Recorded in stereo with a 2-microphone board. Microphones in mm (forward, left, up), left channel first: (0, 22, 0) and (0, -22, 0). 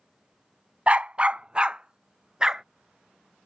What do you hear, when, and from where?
0.9 s a dog barking: 30° right (ahead or behind); by 2.6 s 20° right (ahead or behind)